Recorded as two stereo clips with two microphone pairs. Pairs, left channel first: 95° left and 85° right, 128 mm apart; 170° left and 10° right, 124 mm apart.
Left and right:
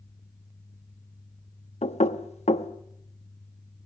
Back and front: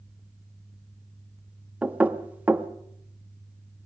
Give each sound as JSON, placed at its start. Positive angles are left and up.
{"t": 1.8, "sound": "knocking", "azimuth_deg": 70, "distance_m": 0.8}